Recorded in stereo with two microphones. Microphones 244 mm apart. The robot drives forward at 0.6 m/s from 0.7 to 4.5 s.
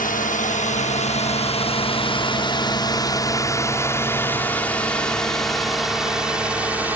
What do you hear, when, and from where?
0.0 s a drone: 35° left (ahead or behind); by 7.0 s 5° right (ahead or behind)